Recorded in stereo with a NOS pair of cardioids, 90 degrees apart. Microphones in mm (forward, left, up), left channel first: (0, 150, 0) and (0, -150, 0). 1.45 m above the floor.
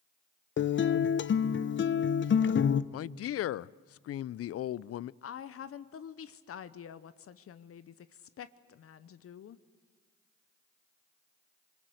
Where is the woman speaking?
50° left, 0.8 m.